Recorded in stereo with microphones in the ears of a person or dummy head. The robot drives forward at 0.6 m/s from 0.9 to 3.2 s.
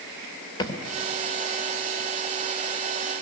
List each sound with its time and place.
0.6 s a thud: 25° left (ahead or behind), 3 m